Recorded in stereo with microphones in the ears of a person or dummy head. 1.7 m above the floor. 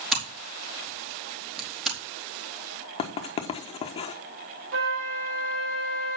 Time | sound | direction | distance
0.1 | scissors | centre (ahead or behind) | 3 m
3.0 | writing | 25° left (ahead or behind) | 1.0 m
4.7 | a flute | 80° right | 5 m